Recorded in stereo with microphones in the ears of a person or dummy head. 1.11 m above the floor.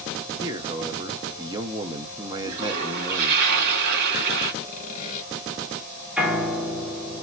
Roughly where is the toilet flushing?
Right.